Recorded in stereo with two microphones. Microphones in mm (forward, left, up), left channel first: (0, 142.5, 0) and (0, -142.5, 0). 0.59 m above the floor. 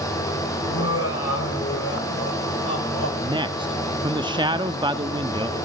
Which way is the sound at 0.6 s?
55° left (ahead or behind).